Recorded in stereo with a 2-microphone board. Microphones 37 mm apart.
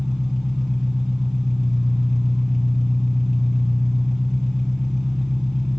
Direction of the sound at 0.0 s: Centre (ahead or behind).